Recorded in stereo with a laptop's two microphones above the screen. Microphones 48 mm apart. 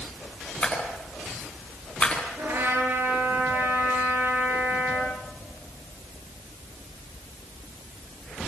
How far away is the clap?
About 9.5 m.